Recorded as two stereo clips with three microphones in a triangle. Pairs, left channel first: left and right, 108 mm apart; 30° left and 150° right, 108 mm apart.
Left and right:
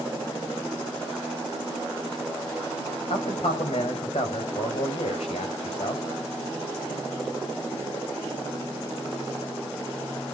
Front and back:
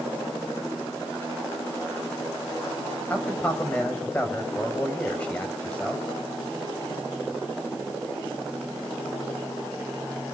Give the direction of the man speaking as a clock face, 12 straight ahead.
8 o'clock.